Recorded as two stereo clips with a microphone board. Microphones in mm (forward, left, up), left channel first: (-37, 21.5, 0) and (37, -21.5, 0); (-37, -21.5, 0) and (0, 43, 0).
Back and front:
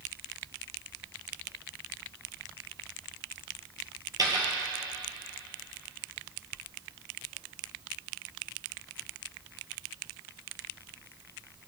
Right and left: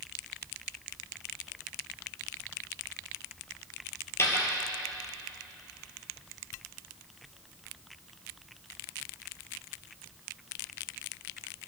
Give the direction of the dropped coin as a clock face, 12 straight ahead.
2 o'clock.